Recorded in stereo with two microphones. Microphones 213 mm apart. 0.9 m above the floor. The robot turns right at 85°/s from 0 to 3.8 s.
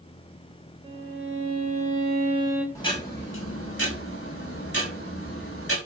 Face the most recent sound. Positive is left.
turn(degrees=100)